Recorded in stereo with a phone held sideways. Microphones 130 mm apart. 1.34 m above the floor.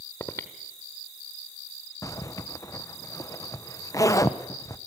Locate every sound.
0.2 s breathing: 20° left (ahead or behind), 1.0 m
2.0 s a zipper: 25° left (ahead or behind), 0.8 m